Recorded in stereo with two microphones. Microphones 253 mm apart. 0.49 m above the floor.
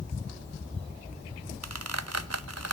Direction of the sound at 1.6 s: 80° right.